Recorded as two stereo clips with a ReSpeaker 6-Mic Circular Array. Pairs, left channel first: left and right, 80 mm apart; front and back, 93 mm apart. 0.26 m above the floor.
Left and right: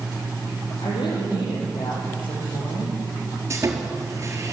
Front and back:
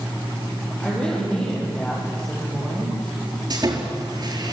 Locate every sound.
0.8 s a woman speaking: 80° left, 10 m
3.5 s sawing: 145° right, 4 m